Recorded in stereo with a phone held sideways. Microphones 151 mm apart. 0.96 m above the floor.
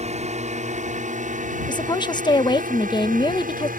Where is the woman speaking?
30° left (ahead or behind).